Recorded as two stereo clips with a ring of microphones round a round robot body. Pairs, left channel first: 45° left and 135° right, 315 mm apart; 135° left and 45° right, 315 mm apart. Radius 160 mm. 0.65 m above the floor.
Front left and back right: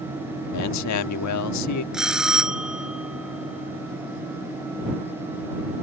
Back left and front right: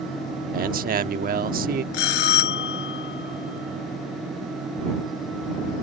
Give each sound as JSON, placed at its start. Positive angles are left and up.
{"t": 0.5, "sound": "a man speaking", "azimuth_deg": 15}
{"t": 1.9, "sound": "a bell", "azimuth_deg": 135}